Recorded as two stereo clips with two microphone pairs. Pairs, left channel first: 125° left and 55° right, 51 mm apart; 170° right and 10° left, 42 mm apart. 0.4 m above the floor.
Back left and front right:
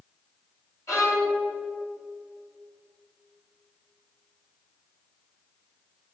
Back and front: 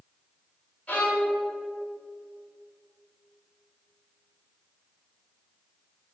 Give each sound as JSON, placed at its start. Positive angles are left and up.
{"t": 0.9, "sound": "a violin", "azimuth_deg": 130, "distance_m": 3.0}